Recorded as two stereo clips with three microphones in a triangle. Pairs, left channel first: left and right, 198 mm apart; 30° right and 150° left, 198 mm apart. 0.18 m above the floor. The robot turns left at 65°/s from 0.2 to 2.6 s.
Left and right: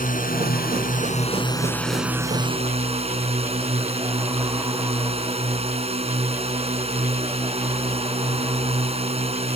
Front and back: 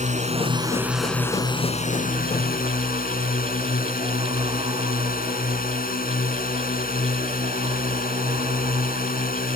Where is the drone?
115° left; by 9.6 s 45° right.